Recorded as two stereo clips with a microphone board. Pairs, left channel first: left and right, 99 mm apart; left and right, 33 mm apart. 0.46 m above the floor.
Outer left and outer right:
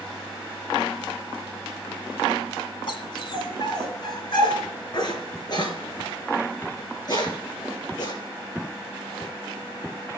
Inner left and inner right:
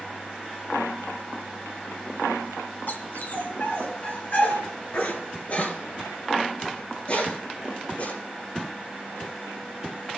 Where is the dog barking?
60° left (ahead or behind), 1.4 m; by 8.1 s 45° left (ahead or behind), 4.5 m.